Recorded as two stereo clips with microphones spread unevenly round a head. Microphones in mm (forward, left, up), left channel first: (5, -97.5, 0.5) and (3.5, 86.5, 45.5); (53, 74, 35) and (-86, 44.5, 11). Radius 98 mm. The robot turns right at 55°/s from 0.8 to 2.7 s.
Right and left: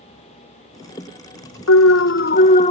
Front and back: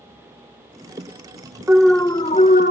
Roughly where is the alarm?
Right.